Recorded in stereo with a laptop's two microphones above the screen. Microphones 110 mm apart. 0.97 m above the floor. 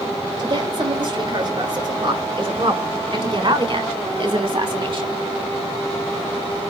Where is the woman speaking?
40° right (ahead or behind), 6.5 m; by 5.2 s 45° right (ahead or behind), 2.5 m.